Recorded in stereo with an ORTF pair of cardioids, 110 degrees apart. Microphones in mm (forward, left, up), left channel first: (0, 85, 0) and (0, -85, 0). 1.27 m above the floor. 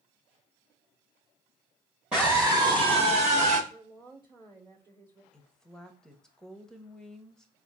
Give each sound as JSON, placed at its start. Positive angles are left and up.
{"t": 2.1, "sound": "a scream", "azimuth_deg": -5, "distance_m": 0.9}
{"t": 3.7, "sound": "a woman speaking", "azimuth_deg": -25, "distance_m": 1.0}
{"t": 5.3, "sound": "a woman speaking", "azimuth_deg": 5, "distance_m": 0.7}